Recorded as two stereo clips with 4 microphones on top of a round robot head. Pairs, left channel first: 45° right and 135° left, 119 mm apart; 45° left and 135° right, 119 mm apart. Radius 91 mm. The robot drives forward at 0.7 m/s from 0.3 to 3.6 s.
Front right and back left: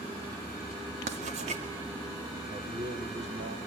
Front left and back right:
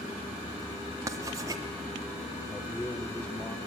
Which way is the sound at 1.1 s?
160° left.